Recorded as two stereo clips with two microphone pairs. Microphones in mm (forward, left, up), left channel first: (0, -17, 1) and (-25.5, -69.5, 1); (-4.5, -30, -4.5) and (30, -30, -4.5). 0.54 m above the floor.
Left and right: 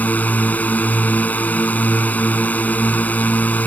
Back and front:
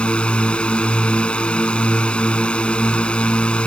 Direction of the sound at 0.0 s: 125° left.